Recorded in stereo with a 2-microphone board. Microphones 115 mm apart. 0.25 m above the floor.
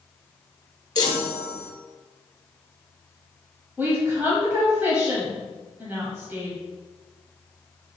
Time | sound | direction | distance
0.9 | a chime | 40° left (ahead or behind) | 0.9 m
3.8 | a woman speaking | 20° right (ahead or behind) | 1.2 m